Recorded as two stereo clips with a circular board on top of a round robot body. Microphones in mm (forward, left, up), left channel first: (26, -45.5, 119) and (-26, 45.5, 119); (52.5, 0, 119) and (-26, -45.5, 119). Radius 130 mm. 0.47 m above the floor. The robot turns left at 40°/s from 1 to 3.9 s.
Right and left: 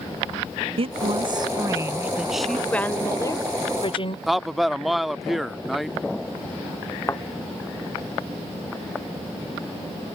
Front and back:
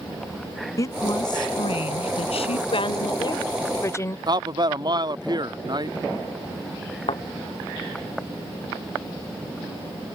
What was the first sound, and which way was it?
A woman speaking, 85° left.